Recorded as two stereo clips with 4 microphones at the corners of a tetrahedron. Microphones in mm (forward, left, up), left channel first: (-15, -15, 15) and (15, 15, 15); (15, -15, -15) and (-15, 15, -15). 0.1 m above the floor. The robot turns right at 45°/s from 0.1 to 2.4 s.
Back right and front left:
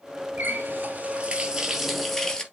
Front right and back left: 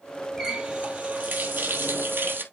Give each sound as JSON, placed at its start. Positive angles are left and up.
{"t": 0.4, "sound": "a running tap", "azimuth_deg": 60, "distance_m": 1.4}